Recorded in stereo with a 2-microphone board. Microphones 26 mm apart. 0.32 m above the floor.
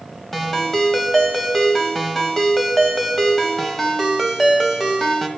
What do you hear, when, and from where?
0.3 s a ringtone: 15° left (ahead or behind), 1.5 m